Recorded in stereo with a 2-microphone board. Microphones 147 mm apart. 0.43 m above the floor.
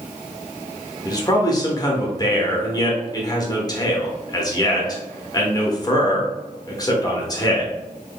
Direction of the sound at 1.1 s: 30° left (ahead or behind).